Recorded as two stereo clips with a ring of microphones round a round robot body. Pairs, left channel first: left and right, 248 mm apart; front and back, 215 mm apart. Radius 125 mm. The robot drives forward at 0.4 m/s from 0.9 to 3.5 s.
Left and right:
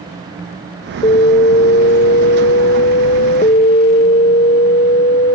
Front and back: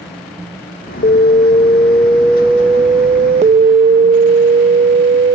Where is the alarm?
35° left; by 5.4 s 140° left.